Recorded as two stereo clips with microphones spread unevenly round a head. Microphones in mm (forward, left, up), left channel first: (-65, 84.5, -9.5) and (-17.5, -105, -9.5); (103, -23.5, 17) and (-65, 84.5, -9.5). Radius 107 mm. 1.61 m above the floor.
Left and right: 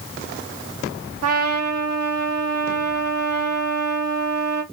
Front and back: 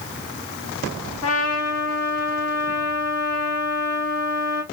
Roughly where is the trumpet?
Ahead right.